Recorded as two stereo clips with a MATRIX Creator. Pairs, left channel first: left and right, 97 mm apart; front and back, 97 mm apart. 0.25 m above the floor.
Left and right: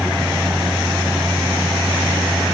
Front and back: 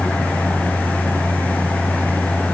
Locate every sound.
Only background noise.